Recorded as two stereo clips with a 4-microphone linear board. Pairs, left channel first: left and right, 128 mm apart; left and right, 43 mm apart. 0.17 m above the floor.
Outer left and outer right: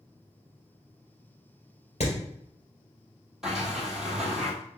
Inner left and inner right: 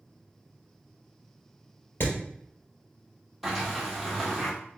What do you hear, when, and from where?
2.0 s hammering: 60° left (ahead or behind), 2.5 m
3.4 s a sliding door: 5° right (ahead or behind), 1.4 m